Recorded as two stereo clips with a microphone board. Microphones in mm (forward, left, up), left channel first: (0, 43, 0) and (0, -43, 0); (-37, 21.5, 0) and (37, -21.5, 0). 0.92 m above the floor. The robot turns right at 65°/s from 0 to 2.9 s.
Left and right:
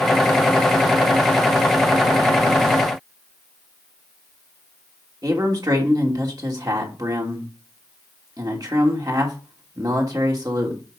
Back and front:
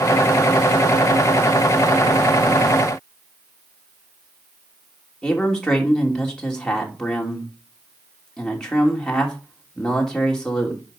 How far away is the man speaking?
About 3 m.